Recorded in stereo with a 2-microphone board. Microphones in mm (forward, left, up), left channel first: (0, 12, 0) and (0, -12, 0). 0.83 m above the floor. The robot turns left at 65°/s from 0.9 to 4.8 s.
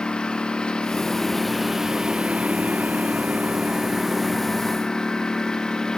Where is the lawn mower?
45° left; by 6.0 s 150° left.